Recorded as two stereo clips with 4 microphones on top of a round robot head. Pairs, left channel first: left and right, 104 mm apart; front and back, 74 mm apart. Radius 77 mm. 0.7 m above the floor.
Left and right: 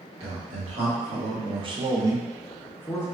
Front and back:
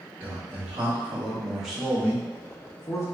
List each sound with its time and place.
0.2 s a man speaking: 110° right, 1.5 m; by 3.0 s 30° left, 0.7 m